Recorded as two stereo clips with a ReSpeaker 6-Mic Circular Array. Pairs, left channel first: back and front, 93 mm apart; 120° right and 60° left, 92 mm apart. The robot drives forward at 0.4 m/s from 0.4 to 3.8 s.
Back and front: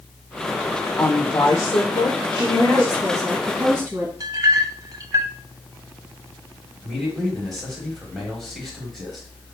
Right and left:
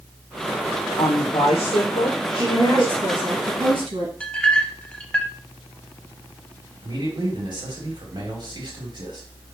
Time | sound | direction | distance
1.0 | a woman speaking | 125° right | 0.6 m
2.4 | a woman speaking | 45° left | 1.9 m
4.2 | a clink | 45° right | 0.6 m
6.8 | a man speaking | 95° left | 2 m